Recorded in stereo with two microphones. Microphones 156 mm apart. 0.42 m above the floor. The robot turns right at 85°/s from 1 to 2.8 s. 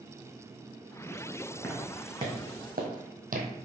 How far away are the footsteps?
About 1.7 m.